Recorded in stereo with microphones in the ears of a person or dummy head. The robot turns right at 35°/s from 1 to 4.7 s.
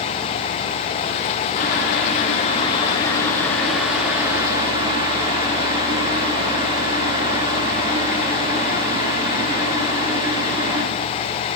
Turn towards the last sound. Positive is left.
turn(degrees=-150)